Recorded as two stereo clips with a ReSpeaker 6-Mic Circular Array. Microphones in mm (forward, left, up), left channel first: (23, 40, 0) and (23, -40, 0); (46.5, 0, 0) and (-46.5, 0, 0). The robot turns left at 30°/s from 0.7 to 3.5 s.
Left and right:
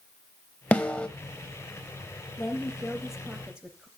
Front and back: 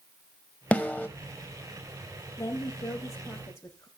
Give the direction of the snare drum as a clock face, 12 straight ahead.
10 o'clock.